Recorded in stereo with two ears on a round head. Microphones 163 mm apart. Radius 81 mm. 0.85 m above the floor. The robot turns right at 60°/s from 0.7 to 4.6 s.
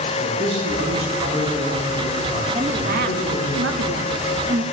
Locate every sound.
0.2 s a man speaking: 100° right, 6.5 m; by 3.5 s 70° left, 6.5 m
2.5 s a woman speaking: 150° right, 1.2 m; by 4.6 s 25° right, 1.2 m